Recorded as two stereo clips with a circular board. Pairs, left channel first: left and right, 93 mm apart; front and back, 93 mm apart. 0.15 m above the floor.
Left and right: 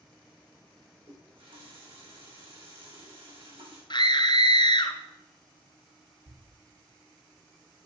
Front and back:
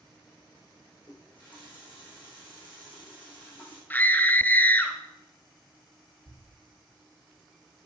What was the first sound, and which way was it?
A running tap, 70° right.